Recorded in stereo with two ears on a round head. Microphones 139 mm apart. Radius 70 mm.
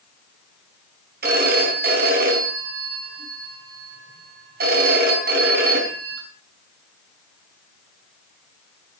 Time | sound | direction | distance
1.2 | a phone ringing | 70° right (ahead or behind) | 5 m